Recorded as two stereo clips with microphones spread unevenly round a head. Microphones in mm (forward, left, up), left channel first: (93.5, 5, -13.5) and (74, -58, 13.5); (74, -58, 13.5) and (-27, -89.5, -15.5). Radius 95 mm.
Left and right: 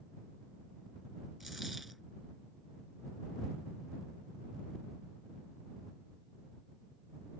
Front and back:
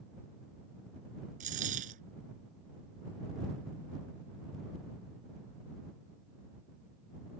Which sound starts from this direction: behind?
A dropped coin, at 1.4 s.